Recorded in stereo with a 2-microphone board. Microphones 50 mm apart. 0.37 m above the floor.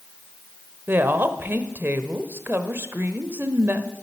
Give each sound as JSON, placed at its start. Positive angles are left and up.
{"t": 0.9, "sound": "a woman speaking", "side_deg": -45, "distance_m": 1.0}